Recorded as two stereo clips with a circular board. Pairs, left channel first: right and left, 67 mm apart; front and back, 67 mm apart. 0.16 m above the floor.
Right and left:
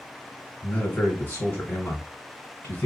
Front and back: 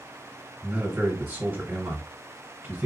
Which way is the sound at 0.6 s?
140° right.